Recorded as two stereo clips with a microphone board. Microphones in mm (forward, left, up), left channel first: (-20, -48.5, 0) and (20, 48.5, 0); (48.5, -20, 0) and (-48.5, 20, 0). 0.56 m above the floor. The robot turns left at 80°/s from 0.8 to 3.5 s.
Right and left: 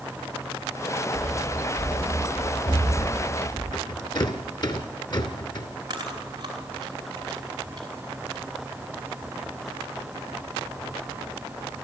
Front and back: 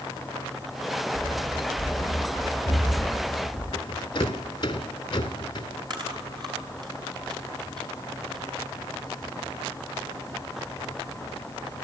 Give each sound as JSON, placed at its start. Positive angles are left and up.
{"t": 1.1, "sound": "running footsteps", "azimuth_deg": 70, "distance_m": 4.0}
{"t": 3.7, "sound": "a rattle", "azimuth_deg": -70, "distance_m": 2.0}
{"t": 5.9, "sound": "chewing", "azimuth_deg": 115, "distance_m": 4.5}